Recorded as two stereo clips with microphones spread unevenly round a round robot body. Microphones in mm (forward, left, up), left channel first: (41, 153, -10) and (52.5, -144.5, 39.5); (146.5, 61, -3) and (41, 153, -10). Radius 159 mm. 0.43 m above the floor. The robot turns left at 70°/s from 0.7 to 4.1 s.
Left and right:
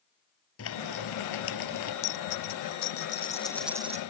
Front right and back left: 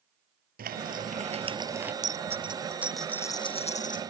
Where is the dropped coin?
115° left; by 4.0 s 25° right.